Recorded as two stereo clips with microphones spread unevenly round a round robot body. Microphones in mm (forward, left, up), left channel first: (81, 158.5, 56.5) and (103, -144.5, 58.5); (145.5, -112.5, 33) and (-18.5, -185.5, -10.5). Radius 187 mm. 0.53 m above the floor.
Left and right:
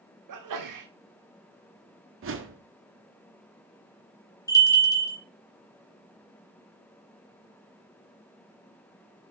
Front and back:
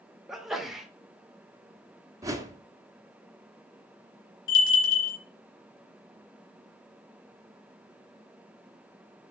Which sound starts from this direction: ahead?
A bell, at 4.5 s.